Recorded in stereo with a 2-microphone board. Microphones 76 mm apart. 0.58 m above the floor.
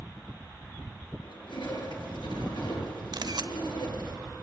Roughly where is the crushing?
Left.